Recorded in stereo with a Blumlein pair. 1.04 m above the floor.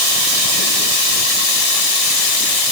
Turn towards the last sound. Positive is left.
No sound to turn to.